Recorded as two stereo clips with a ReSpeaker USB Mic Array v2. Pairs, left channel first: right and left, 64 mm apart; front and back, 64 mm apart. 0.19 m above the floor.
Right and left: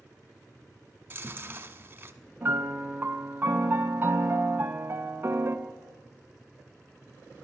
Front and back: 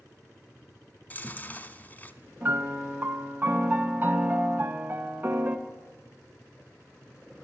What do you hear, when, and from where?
1.1 s chewing: 50° left, 1.0 m
2.4 s a piano: 135° left, 1.0 m